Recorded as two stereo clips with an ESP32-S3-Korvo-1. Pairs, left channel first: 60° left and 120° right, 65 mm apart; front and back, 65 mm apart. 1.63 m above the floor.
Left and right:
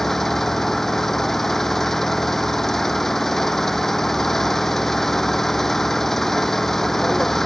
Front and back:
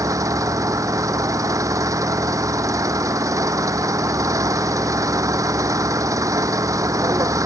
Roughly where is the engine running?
Behind left.